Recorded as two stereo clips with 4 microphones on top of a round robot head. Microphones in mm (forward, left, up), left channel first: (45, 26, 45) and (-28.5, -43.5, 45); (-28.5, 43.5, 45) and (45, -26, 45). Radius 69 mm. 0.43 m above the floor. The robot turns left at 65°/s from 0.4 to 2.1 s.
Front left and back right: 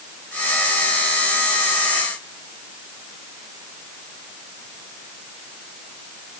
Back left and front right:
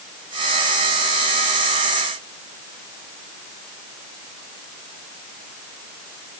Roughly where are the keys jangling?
I don't hear keys jangling.